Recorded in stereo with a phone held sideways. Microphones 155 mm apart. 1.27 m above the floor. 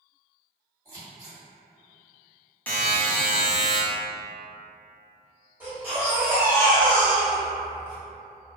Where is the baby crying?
15° right (ahead or behind), 1.3 m.